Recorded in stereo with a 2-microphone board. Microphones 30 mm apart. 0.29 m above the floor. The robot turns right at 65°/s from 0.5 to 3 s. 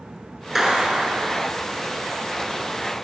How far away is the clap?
About 2.5 m.